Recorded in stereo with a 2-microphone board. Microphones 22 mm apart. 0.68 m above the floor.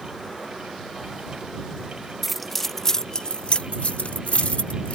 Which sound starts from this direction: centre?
Keys jangling, at 2.2 s.